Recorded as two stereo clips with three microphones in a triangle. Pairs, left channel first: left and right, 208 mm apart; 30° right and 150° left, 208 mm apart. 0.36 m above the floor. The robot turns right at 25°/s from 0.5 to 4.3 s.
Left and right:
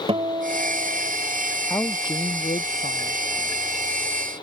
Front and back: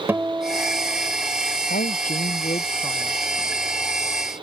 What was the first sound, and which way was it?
A guitar, 135° right.